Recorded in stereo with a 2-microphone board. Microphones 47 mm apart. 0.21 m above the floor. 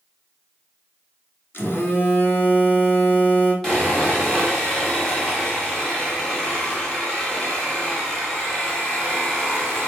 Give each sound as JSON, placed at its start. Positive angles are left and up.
{"t": 1.5, "sound": "a phone buzzing", "side_deg": 50, "distance_m": 1.0}
{"t": 3.6, "sound": "sawing", "side_deg": 10, "distance_m": 1.6}